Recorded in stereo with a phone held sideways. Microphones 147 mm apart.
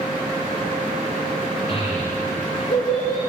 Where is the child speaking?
45° left (ahead or behind), 3.5 m; by 3.2 s 70° left (ahead or behind), 4 m.